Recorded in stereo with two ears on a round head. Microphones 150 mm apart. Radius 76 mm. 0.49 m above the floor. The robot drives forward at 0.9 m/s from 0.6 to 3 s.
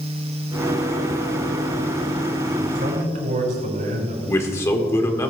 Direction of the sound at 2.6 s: 60° right (ahead or behind).